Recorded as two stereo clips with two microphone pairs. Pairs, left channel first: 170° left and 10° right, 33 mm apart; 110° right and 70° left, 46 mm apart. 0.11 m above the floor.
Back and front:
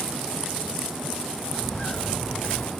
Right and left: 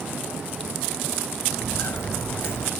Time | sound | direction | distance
1.5 | footsteps | 140° right | 2 m